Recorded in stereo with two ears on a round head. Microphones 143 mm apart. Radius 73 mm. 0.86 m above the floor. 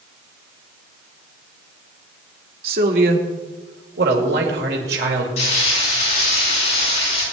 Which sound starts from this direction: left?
Frying, at 5.4 s.